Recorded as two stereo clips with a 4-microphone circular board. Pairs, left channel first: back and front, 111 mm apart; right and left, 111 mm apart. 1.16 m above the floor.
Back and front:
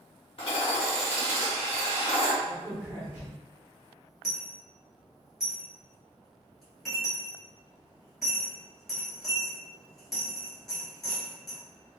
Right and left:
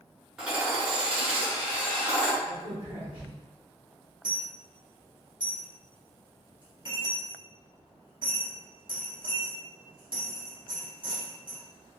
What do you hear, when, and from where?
0.4 s hammering: 165° left, 1.1 m
2.4 s a crack: 65° left, 1.6 m
4.2 s a dropped coin: 95° left, 1.5 m